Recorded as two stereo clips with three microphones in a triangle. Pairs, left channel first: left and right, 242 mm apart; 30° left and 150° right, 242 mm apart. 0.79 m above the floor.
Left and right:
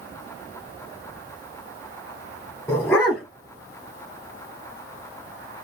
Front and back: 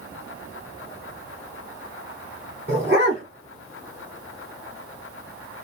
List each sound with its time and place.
2.7 s a dog barking: 170° left, 2.5 m